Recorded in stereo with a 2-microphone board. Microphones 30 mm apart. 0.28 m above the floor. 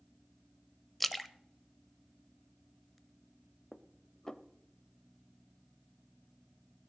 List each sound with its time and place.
1.0 s a splash: 5° left (ahead or behind), 0.5 m
3.7 s dishes clattering: 20° left (ahead or behind), 0.6 m